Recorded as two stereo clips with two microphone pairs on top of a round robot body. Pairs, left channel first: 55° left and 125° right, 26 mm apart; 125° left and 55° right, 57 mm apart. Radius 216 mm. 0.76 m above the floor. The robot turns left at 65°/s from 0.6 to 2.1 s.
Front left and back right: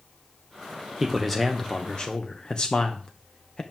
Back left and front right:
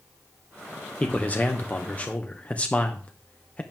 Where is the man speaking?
165° left, 1.3 m; by 3.6 s 95° left, 1.3 m.